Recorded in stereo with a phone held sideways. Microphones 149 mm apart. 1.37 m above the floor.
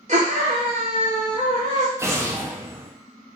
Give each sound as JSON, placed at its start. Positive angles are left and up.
{"t": 0.1, "sound": "a scream", "side_deg": -50, "distance_m": 0.7}
{"t": 2.0, "sound": "an explosion", "side_deg": -20, "distance_m": 0.6}